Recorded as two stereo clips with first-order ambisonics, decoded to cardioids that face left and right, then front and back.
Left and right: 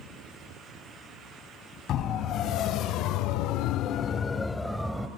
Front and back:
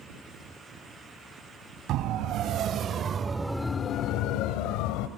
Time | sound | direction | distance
1.9 | a siren | 140° left | 2.5 m